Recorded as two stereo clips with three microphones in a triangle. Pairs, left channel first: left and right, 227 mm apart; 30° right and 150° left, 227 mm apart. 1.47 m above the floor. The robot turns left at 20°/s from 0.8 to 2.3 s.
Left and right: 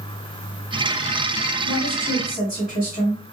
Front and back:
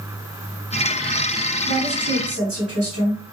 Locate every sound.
1.6 s a woman speaking: 155° left, 1.4 m; by 3.2 s 140° left, 1.4 m